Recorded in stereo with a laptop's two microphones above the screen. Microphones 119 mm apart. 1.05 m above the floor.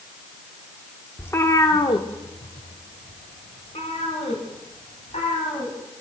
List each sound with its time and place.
1.2 s a cat meowing: 15° left (ahead or behind), 0.7 m; by 5.8 s 75° left (ahead or behind), 3 m